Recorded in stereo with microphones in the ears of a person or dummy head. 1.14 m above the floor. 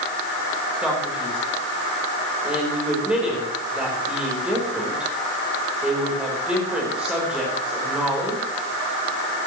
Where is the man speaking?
Centre (ahead or behind), 4.5 m.